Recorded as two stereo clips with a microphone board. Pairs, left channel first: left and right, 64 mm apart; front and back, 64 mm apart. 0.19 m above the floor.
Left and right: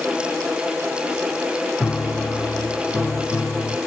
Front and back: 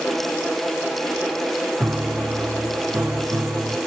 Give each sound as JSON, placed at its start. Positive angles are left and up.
{"t": 1.8, "sound": "a piano", "azimuth_deg": 140, "distance_m": 1.5}